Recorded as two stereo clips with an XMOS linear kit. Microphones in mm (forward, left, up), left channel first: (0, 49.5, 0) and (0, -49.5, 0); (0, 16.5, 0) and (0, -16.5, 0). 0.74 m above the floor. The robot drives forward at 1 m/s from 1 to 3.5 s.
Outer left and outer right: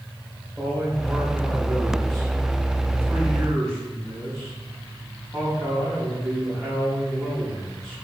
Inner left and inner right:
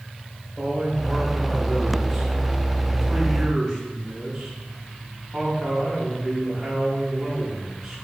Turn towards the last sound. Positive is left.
turn(degrees=5)  # may be behind; listen again after turning